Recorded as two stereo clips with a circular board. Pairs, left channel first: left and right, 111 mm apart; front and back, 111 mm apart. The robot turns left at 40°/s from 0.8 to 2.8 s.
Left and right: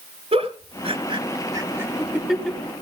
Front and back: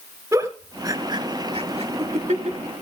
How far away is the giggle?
About 1.3 m.